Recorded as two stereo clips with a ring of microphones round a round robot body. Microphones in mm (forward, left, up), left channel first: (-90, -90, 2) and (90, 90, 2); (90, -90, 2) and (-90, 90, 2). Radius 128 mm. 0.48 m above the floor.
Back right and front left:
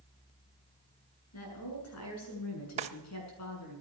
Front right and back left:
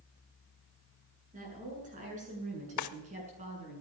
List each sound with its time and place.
1.3 s a woman speaking: 165° right, 7.5 m; by 3.8 s 160° right, 6.5 m
2.8 s a drawer: 20° right, 0.7 m